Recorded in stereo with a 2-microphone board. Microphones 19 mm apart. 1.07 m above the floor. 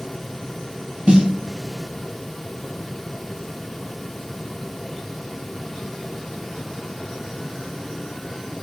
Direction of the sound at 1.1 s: 45° right (ahead or behind).